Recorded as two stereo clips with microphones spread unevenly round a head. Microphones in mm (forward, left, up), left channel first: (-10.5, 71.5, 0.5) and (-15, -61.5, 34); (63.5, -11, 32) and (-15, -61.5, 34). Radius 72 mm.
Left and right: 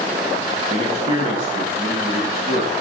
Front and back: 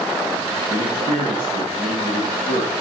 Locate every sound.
0.7 s a man speaking: 135° right, 1.8 m